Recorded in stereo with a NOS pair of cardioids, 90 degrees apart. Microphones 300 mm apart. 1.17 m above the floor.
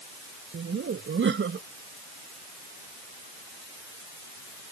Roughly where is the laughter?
Ahead right.